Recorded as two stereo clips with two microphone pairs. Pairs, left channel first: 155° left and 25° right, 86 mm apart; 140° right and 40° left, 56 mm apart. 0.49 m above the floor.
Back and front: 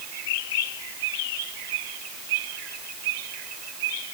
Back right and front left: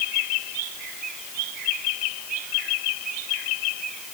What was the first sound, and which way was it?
Only background noise.